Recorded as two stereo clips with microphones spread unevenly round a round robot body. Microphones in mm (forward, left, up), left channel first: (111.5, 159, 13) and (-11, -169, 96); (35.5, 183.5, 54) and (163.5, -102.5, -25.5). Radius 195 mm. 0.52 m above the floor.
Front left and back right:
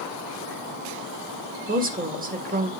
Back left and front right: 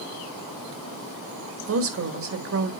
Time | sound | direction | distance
1.7 | a woman speaking | 40° right | 1.8 m